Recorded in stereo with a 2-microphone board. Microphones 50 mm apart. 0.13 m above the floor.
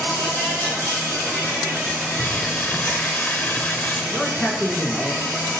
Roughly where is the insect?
Left.